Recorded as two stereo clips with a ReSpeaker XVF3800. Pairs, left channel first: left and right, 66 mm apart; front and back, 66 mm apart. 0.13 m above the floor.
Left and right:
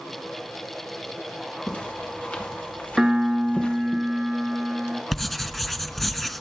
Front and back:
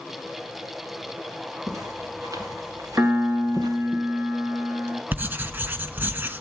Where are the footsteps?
155° left, 5 m; by 4.0 s 160° left, 3.5 m.